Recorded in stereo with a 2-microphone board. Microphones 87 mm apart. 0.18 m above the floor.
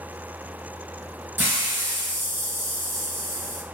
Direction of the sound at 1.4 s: 25° right (ahead or behind).